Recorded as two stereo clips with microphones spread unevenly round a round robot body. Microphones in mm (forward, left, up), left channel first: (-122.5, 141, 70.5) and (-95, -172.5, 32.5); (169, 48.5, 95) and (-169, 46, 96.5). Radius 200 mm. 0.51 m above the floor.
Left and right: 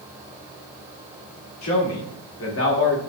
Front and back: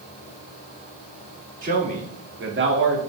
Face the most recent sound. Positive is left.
turn(degrees=145)